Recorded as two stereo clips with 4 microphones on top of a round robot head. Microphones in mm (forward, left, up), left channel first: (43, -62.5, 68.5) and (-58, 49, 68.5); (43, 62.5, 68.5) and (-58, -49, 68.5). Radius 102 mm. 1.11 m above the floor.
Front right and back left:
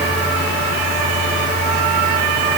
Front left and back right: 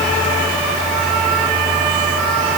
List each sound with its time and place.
Only background noise.